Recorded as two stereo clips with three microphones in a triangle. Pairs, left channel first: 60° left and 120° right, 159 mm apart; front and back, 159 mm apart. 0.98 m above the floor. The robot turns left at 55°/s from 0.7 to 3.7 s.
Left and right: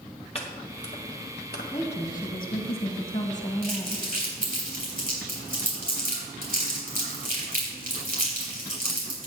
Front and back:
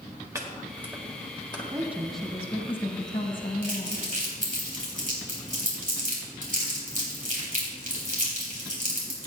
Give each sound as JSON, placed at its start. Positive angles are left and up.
{"t": 0.3, "sound": "chopping", "azimuth_deg": 110, "distance_m": 1.7}
{"t": 1.7, "sound": "a woman speaking", "azimuth_deg": 110, "distance_m": 1.3}
{"t": 3.6, "sound": "crumpling", "azimuth_deg": -140, "distance_m": 3.5}